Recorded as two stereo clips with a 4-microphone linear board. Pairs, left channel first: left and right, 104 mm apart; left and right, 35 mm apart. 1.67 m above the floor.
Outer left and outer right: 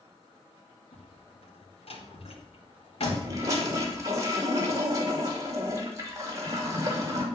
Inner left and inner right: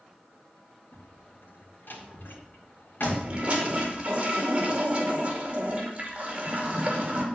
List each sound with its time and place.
0.9 s a door slam: 70° left (ahead or behind), 2.5 m
3.0 s a toilet flushing: 35° right (ahead or behind), 2 m